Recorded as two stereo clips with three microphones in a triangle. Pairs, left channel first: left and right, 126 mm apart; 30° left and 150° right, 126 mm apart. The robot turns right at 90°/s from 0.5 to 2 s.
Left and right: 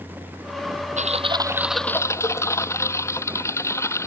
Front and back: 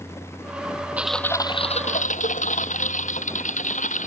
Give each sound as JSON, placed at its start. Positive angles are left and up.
{"t": 1.0, "sound": "typing on a keyboard", "azimuth_deg": -70}